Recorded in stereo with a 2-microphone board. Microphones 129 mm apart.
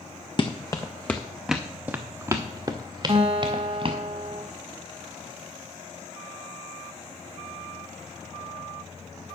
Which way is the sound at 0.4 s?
35° left (ahead or behind).